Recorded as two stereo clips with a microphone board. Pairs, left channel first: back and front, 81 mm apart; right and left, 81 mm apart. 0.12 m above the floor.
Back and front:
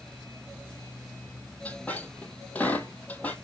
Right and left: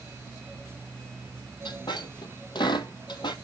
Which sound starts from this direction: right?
A squeak, at 1.6 s.